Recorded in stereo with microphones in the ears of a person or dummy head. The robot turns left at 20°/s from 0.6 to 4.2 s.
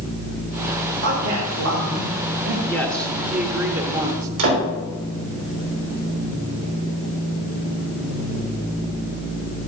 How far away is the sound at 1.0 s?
About 3 m.